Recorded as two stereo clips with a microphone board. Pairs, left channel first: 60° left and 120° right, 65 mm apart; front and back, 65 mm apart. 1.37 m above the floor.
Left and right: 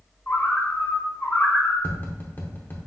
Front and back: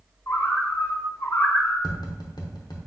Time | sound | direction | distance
0.3 | a bird | 15° left | 1.4 m
1.8 | tapping | straight ahead | 0.8 m